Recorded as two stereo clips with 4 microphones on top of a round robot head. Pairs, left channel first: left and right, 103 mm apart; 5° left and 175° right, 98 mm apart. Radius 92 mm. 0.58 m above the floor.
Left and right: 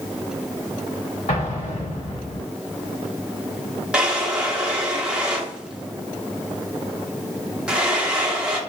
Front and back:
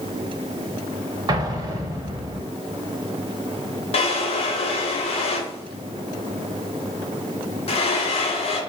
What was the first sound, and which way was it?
An explosion, 135° left.